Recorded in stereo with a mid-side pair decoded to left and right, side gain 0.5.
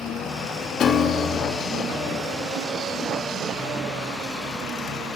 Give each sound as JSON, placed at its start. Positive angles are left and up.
{"t": 0.8, "sound": "a piano", "azimuth_deg": 55, "distance_m": 2.5}